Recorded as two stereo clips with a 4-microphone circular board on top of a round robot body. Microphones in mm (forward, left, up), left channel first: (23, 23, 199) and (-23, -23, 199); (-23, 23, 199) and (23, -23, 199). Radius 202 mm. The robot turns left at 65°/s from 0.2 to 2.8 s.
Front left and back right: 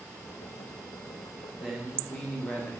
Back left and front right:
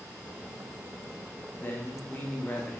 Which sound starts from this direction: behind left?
A man speaking, at 1.6 s.